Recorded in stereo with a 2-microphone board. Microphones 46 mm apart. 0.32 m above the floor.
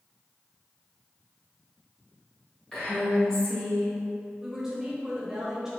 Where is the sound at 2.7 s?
15° left (ahead or behind), 1.5 m.